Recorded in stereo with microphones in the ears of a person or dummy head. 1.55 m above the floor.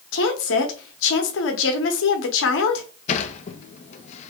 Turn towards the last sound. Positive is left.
turn(degrees=40)  # may be behind; listen again after turning